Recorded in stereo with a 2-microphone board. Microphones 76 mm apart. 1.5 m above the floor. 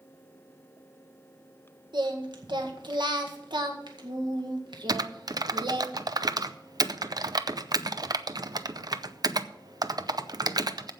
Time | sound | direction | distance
1.9 | singing | 80° right | 1.8 m
4.9 | typing on a keyboard | 55° right (ahead or behind) | 0.6 m